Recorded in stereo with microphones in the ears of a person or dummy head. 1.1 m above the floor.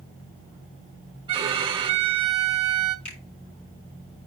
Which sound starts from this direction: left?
A finger snap, at 3.0 s.